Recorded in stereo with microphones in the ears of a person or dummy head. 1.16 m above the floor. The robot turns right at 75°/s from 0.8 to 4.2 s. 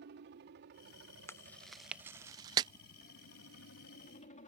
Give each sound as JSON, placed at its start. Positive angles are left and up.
{"t": 0.0, "sound": "a helicopter", "azimuth_deg": -115}
{"t": 1.3, "sound": "chewing", "side_deg": 10}